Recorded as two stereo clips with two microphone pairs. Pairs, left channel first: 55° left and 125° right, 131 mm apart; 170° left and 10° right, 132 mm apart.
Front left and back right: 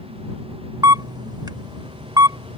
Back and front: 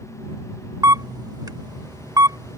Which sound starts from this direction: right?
A camera shutter, at 0.8 s.